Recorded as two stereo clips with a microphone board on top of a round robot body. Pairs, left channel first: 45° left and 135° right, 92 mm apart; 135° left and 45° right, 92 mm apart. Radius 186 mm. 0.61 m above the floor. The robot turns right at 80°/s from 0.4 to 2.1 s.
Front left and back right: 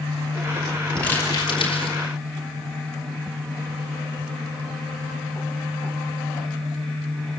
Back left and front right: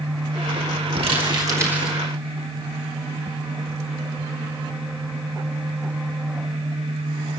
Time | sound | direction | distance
1.0 | crumpling | 35° right | 5 m